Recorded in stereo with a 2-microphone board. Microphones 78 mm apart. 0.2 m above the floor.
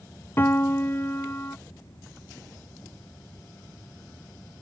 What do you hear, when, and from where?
0.4 s a piano: 30° left (ahead or behind)